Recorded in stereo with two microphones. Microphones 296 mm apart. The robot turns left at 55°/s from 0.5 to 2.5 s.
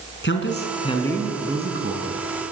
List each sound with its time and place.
0.2 s a man speaking: 40° left, 4.5 m; by 2.2 s 55° right, 4.5 m